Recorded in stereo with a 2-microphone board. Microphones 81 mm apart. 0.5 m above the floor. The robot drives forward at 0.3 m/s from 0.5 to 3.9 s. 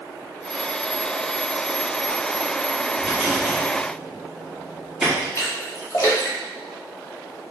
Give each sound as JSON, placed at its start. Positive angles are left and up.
{"t": 3.0, "sound": "a rattle", "side_deg": 0, "distance_m": 1.9}
{"t": 5.3, "sound": "a splash", "side_deg": 40, "distance_m": 1.1}